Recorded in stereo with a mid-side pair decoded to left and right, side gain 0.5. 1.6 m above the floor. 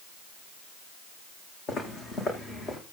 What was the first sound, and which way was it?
Footsteps, 60° left.